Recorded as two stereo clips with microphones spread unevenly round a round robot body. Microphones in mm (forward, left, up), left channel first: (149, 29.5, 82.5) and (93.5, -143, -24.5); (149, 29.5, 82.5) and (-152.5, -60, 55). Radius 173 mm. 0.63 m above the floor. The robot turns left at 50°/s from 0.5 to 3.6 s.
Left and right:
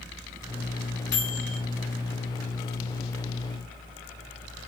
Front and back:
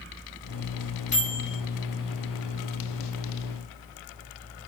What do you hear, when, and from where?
1.1 s a microwave: 85° left, 1.9 m; by 1.6 s 65° left, 1.9 m